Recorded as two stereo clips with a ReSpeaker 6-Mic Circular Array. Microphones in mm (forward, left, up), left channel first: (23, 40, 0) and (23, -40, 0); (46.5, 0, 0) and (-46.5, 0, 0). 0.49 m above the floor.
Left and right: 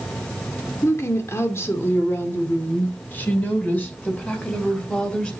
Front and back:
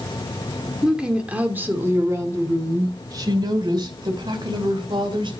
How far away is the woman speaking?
About 1.5 m.